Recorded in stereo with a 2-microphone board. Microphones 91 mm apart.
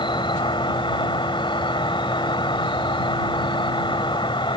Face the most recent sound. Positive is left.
turn(degrees=65)  # may be behind; listen again after turning